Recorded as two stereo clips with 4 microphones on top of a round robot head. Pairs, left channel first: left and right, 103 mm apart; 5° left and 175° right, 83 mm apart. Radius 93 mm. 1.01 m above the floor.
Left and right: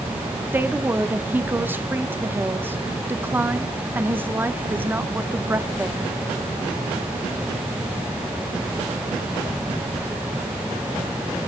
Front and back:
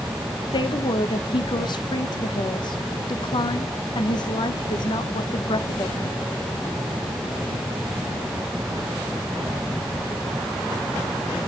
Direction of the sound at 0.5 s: 20° right.